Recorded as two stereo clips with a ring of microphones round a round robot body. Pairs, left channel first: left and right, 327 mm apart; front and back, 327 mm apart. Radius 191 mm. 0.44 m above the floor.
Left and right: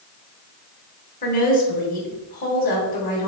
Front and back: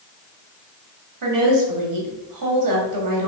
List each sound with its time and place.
1.2 s a woman speaking: 155° left, 3 m